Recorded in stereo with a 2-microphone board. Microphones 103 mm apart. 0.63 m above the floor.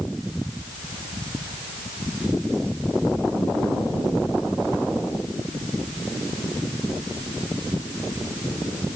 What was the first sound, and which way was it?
Only background noise.